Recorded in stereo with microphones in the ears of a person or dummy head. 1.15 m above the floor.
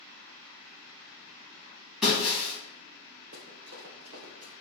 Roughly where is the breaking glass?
Centre.